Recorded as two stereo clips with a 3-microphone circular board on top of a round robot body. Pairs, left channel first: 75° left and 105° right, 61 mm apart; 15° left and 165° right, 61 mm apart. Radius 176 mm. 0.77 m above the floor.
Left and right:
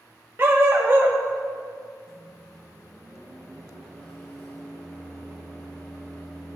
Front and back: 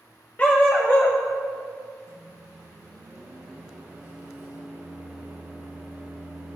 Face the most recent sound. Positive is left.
turn(degrees=145)